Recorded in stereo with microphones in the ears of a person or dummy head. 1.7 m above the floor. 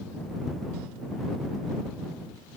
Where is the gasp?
No gasp in this recording.